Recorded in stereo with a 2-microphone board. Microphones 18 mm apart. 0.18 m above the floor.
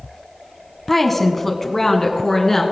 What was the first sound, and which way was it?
A woman speaking, 10° left (ahead or behind).